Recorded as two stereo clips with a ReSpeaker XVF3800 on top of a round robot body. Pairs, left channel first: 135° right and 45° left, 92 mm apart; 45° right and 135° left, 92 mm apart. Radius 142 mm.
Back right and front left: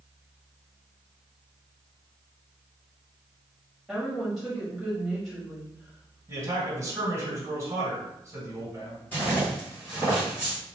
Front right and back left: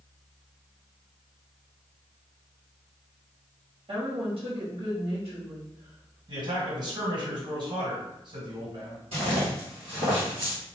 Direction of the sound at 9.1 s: 155° left.